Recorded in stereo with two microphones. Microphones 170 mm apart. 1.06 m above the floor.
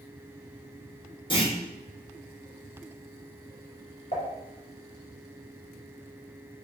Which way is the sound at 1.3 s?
30° left (ahead or behind).